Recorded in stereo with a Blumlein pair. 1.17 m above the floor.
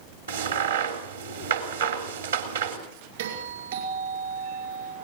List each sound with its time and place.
0.3 s a crack: 65° right, 3 m
3.2 s a doorbell: 55° right, 5 m